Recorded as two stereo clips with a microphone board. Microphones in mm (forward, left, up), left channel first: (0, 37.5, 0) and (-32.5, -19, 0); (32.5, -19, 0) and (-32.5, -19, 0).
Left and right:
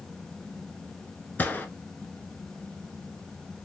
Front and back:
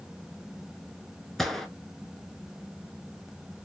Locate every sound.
1.4 s a gunshot: 85° left, 0.9 m